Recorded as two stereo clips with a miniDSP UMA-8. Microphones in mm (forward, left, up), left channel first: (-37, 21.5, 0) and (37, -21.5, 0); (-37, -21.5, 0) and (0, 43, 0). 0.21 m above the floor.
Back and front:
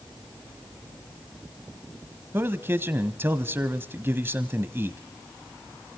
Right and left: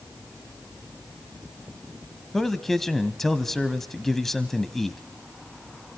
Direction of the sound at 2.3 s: 40° right.